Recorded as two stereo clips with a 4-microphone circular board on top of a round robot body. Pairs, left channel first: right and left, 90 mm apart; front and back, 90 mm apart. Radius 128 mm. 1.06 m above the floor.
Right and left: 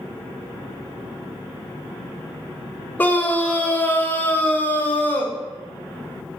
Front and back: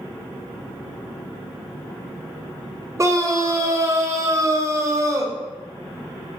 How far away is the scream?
About 0.7 m.